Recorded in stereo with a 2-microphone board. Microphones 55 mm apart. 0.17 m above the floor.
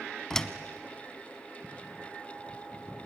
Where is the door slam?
10° left (ahead or behind), 0.9 m.